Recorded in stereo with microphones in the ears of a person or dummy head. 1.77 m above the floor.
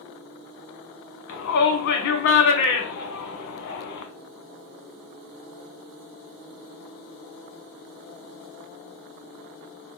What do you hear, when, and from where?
1.3 s a shout: 70° left (ahead or behind), 0.9 m